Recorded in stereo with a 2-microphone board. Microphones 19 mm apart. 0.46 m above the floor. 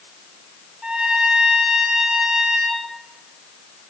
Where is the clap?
No clap in this recording.